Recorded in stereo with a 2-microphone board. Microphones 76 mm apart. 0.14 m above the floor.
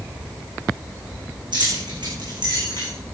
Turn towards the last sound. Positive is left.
turn(degrees=-75)  # may be behind; listen again after turning